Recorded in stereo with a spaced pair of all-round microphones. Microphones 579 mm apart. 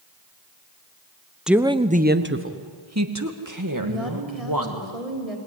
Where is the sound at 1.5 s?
Centre (ahead or behind), 0.9 m; by 4.8 s 35° right (ahead or behind), 3 m.